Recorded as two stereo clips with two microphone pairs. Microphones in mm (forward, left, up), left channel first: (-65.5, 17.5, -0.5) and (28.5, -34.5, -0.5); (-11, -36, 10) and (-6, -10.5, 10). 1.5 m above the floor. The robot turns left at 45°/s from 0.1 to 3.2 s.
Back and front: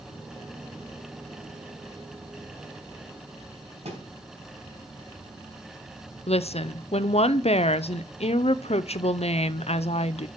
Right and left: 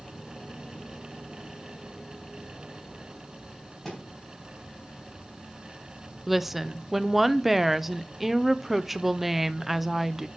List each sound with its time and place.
3.9 s a thud: 25° right, 4 m
6.3 s a woman speaking: 165° left, 0.6 m